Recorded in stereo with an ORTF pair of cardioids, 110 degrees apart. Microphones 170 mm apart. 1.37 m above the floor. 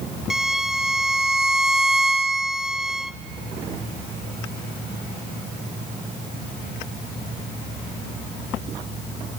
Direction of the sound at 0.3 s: 5° right.